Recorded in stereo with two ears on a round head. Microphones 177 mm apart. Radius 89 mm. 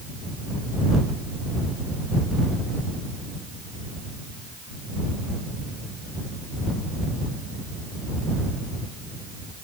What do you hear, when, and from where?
Only background noise.